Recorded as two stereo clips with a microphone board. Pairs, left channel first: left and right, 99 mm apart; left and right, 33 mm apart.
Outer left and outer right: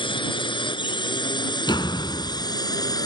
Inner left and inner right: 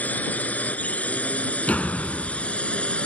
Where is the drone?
55° left (ahead or behind); by 3.1 s 40° left (ahead or behind).